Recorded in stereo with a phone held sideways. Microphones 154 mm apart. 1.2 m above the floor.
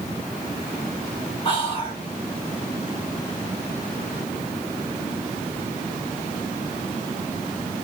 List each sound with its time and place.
1.4 s whispering: 35° left (ahead or behind), 2 m